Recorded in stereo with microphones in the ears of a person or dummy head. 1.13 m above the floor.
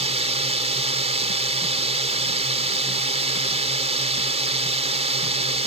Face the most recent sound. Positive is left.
turn(degrees=-30)  # may be behind; listen again after turning